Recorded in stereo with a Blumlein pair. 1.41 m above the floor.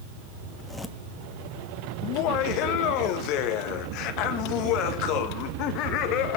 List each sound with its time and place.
0.5 s a zipper: straight ahead, 1.9 m
2.0 s laughter: 40° left, 1.6 m